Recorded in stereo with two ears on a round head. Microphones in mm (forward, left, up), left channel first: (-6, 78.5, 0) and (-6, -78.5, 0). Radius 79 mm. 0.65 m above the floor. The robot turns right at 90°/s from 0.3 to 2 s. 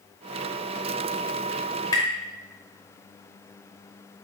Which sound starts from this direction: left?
Tapping, at 1.9 s.